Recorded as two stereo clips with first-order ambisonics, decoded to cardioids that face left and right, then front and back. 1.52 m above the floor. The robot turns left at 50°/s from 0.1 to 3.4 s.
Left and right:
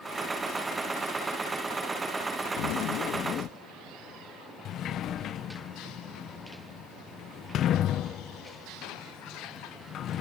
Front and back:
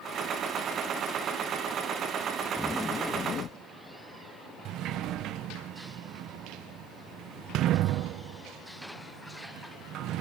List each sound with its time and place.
2.6 s a zipper: 90° left; by 3.5 s 45° left
4.7 s a sliding door: 140° left